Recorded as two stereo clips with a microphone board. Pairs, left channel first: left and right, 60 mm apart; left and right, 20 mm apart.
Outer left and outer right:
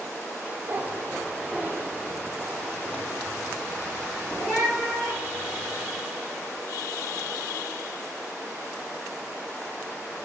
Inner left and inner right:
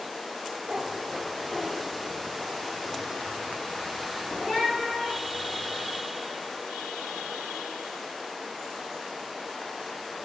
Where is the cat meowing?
40° right (ahead or behind), 0.5 m; by 5.8 s centre (ahead or behind), 7.5 m.